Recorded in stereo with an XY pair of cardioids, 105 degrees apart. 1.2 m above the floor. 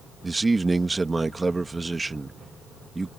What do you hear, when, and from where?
0.2 s a man speaking: 20° right